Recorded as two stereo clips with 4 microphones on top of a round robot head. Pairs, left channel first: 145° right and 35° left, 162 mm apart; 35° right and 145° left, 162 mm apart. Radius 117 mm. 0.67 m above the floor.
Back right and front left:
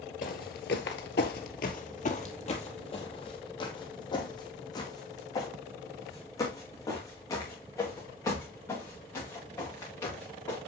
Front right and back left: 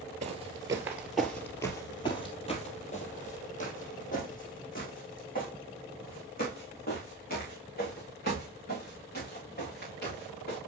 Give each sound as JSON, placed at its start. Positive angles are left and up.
{"t": 0.2, "sound": "footsteps", "azimuth_deg": -175, "distance_m": 0.8}